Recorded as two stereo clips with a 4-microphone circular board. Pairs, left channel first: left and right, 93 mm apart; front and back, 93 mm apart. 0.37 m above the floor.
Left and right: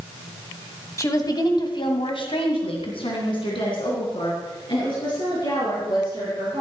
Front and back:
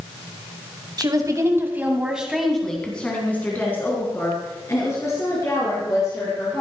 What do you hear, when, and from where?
1.0 s a woman speaking: 145° left, 2.5 m; by 6.6 s 50° left, 8 m